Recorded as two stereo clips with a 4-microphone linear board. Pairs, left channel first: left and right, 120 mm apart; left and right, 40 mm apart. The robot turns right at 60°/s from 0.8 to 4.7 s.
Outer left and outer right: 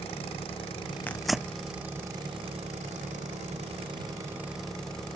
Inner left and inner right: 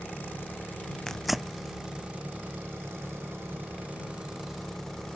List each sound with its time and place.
0.0 s an engine running: 130° left; by 5.2 s 5° left
1.1 s tearing paper: 15° left (ahead or behind); by 1.6 s 15° right (ahead or behind)